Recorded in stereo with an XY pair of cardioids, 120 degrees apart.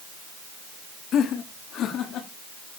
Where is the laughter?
60° left, 2.5 m; by 2.3 s 65° left, 3.5 m.